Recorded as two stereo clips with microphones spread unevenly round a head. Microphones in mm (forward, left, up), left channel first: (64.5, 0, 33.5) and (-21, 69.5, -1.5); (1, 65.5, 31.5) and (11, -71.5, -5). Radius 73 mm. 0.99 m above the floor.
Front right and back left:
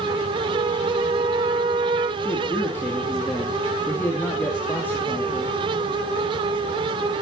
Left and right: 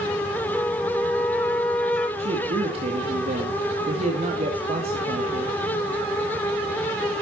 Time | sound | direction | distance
0.5 | a flute | 175° right | 1.7 m
2.2 | a man speaking | 120° right | 2 m